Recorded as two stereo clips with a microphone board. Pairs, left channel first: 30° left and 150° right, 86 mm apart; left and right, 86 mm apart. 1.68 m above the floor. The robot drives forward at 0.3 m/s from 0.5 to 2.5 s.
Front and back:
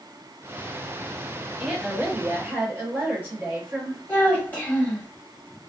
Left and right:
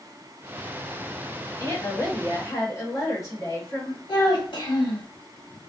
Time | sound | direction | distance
1.6 | a woman speaking | 135° left | 1.1 m
4.1 | a child speaking | 95° left | 1.2 m